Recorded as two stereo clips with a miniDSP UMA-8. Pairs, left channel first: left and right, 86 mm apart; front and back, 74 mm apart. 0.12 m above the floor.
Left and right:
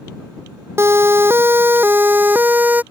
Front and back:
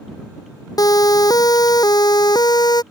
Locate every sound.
0.8 s a siren: 30° right; by 2.8 s 20° right